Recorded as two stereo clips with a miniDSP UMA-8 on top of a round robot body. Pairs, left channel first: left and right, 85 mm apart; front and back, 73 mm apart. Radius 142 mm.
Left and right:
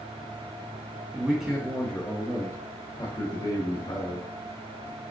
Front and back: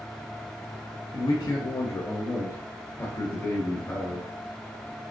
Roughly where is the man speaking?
Ahead.